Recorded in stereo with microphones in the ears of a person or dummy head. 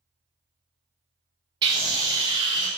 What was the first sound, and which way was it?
A scream, 25° right (ahead or behind).